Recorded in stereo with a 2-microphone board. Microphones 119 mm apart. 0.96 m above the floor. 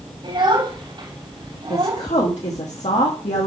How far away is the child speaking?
About 3.5 m.